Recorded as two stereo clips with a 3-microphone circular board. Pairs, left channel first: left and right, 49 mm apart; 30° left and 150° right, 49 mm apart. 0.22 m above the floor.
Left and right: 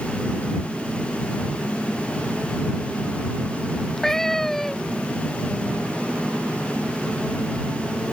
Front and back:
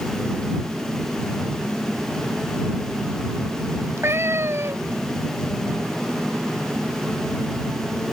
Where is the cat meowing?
175° left.